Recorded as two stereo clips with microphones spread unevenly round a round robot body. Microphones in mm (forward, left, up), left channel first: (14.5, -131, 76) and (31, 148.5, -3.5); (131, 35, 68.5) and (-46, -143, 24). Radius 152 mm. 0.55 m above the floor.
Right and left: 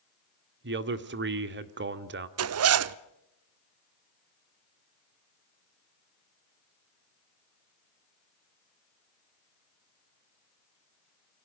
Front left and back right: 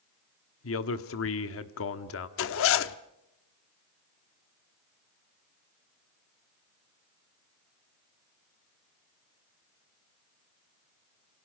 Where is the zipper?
90° left, 0.7 m.